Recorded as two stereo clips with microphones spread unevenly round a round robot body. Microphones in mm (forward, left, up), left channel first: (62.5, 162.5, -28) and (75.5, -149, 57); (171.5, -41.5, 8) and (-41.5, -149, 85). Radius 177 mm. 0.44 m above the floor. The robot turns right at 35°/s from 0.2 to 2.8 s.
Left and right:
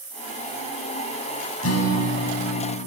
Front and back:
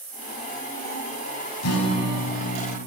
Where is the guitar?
45° left, 1.2 m; by 2.8 s 85° left, 1.2 m.